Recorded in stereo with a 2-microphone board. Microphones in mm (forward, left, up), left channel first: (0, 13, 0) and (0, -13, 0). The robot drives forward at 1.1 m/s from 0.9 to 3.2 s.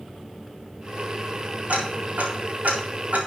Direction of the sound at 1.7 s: 70° right (ahead or behind).